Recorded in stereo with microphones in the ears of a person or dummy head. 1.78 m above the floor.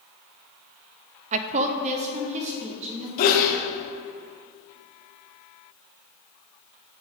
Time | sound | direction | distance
1.3 | a woman speaking | 35° right (ahead or behind) | 0.6 m
3.2 | a sneeze | 55° left (ahead or behind) | 1.0 m